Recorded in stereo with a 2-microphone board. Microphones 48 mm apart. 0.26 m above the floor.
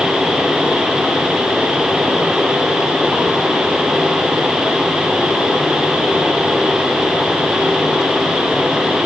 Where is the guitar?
No guitar in this recording.